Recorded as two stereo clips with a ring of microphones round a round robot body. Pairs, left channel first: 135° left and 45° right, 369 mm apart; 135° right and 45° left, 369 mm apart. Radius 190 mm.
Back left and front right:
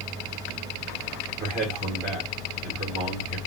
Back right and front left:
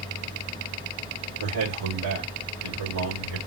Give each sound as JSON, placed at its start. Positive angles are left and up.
{"t": 1.4, "sound": "a man speaking", "azimuth_deg": 25, "distance_m": 2.5}